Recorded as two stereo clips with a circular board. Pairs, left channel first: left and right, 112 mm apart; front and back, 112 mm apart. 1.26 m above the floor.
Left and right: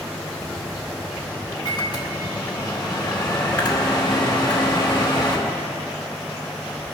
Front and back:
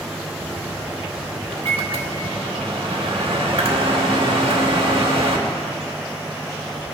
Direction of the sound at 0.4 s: 140° left.